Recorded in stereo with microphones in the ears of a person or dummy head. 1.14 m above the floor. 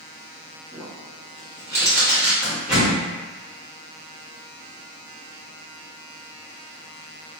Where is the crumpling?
10° right (ahead or behind), 1.6 m.